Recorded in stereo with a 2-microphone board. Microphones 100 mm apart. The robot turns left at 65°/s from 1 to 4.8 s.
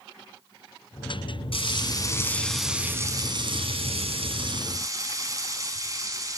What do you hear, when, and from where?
1.5 s frying: 70° left, 2 m; by 6.4 s 145° right, 2 m